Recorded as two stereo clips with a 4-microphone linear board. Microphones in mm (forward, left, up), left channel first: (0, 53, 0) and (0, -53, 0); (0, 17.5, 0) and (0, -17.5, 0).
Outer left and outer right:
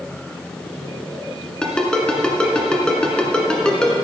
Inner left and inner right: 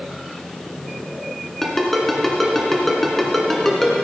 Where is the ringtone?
10° left (ahead or behind), 1.8 m.